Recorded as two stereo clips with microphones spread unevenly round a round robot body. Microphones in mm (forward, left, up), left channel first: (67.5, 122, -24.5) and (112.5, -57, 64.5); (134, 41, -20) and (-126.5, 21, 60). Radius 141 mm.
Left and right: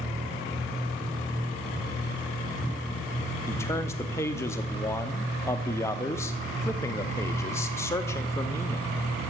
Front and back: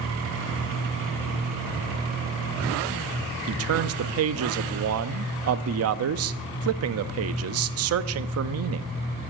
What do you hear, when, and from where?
3.5 s a man speaking: 150° left, 0.6 m